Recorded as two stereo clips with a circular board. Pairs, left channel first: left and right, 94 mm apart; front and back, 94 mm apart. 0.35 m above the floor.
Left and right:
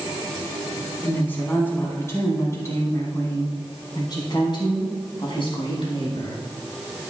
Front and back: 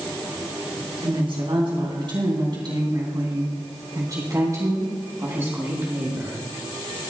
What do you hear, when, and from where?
1.0 s a woman speaking: 160° left, 3.5 m; by 6.4 s 110° left, 3.5 m